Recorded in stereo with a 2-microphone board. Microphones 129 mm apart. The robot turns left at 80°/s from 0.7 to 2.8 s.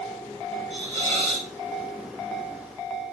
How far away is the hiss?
About 6 m.